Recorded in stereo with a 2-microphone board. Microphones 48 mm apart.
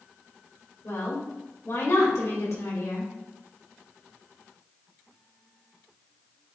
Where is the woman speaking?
70° left (ahead or behind), 2.5 m.